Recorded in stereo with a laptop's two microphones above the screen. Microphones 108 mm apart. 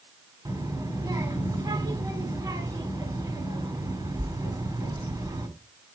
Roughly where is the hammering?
I don't hear hammering.